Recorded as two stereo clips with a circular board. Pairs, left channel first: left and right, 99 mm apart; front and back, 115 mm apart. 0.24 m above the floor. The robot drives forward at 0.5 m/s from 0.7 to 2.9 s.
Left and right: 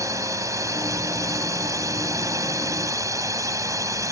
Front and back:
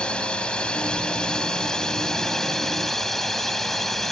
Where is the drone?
75° right; by 4.1 s 85° right.